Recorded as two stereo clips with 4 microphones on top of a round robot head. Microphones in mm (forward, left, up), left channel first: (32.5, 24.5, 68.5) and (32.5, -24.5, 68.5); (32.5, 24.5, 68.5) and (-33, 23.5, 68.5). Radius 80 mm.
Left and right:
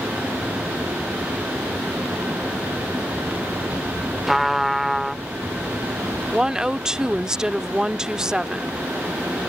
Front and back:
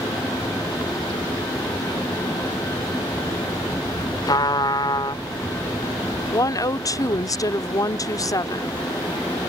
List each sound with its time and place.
4.3 s a trumpet: 5° right
6.3 s a woman speaking: 15° right